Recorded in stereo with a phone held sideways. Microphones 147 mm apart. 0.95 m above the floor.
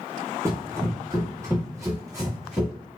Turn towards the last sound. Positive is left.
turn(degrees=-20)  # may be behind; listen again after turning